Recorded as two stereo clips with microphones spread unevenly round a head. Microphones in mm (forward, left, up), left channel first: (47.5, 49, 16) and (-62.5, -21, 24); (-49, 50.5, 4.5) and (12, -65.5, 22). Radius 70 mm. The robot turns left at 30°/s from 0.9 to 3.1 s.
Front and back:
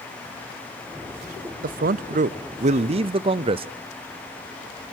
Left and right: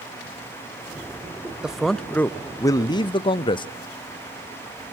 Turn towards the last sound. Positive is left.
turn(degrees=165)